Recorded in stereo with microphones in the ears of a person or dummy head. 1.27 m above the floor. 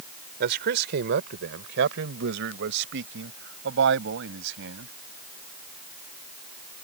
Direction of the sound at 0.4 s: 60° right (ahead or behind).